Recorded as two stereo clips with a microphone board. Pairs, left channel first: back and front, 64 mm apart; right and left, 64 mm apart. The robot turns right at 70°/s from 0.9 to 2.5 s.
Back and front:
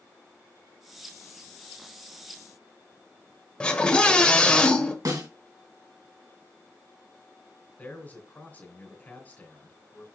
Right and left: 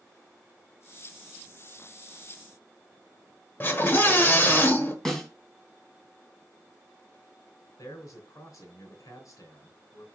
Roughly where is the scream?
Behind right.